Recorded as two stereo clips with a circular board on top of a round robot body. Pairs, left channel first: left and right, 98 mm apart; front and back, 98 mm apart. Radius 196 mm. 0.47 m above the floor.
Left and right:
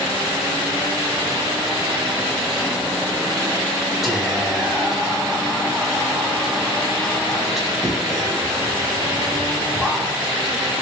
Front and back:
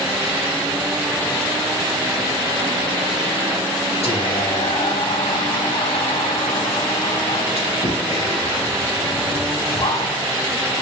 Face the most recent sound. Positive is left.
turn(degrees=-5)